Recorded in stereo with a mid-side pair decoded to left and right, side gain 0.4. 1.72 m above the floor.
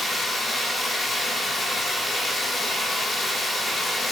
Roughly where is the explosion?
I don't hear an explosion.